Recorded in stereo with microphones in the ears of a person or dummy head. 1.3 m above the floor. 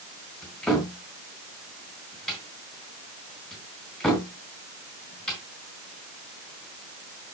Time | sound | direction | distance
0.4 | a cupboard door | 5° left (ahead or behind) | 3.5 m